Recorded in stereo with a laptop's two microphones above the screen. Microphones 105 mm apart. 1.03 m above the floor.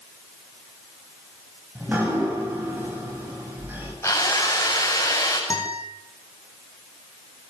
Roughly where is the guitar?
Left.